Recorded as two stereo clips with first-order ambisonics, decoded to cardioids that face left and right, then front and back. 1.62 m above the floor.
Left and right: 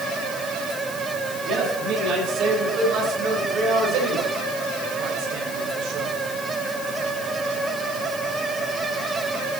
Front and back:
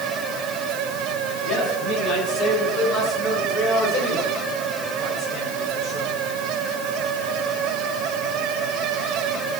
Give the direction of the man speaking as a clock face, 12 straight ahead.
2 o'clock.